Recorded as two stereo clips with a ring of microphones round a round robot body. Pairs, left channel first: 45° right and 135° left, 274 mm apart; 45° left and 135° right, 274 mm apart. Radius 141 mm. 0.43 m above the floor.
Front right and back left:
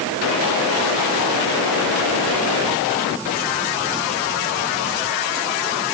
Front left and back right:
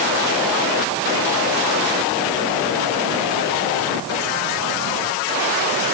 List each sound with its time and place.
Only background noise.